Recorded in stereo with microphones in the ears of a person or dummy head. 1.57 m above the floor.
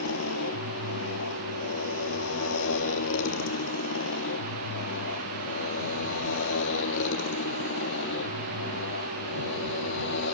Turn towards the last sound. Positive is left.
turn(degrees=70)  # may be behind; listen again after turning